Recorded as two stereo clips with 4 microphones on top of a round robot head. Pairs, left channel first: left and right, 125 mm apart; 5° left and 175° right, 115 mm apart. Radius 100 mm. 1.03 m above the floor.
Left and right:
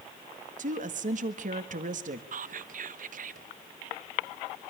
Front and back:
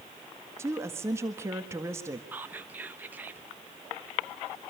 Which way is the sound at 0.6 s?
105° right.